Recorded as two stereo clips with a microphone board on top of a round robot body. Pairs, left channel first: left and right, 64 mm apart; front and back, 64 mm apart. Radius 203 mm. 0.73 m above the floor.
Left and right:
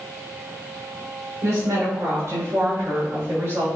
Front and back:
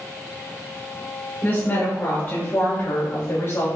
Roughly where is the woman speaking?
Ahead right.